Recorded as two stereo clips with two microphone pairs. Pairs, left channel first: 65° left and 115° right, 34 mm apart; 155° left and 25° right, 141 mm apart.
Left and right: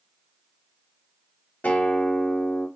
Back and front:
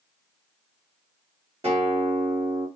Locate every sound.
1.6 s a guitar: 20° left, 3.5 m